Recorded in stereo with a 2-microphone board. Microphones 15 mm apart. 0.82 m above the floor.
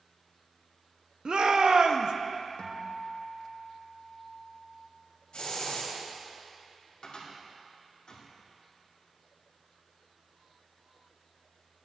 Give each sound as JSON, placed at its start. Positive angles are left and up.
{"t": 1.2, "sound": "a shout", "side_deg": -50, "distance_m": 0.6}
{"t": 2.6, "sound": "a guitar", "side_deg": 65, "distance_m": 0.8}
{"t": 5.3, "sound": "a hiss", "side_deg": 85, "distance_m": 2.0}
{"t": 7.0, "sound": "a cupboard door", "side_deg": 70, "distance_m": 2.0}